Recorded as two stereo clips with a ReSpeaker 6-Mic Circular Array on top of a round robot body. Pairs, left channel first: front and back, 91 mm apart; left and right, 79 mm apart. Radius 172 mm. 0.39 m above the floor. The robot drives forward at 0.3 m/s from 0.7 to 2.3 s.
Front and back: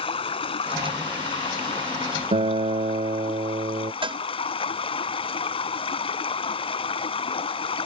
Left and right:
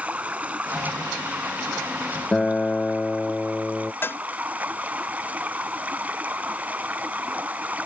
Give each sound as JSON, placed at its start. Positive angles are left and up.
{"t": 0.0, "sound": "running water", "azimuth_deg": -15}
{"t": 2.3, "sound": "a guitar", "azimuth_deg": 170}
{"t": 4.0, "sound": "a cowbell", "azimuth_deg": 155}